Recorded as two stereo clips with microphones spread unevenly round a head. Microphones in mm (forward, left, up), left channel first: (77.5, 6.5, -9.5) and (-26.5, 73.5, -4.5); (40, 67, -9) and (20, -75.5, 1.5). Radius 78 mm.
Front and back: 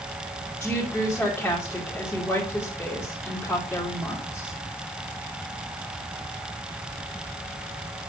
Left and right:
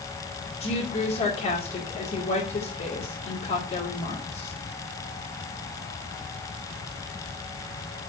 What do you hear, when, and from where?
0.6 s a woman speaking: 45° left, 2.5 m